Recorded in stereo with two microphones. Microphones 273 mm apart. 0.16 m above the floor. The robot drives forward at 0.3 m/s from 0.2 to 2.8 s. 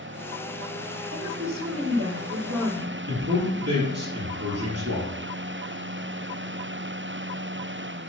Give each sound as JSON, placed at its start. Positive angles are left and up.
{"t": 1.1, "sound": "a woman speaking", "side_deg": -65, "distance_m": 3.5}
{"t": 3.1, "sound": "a man speaking", "side_deg": -65, "distance_m": 4.0}